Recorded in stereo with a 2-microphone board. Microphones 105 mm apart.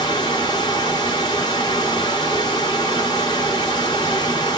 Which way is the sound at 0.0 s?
45° left (ahead or behind).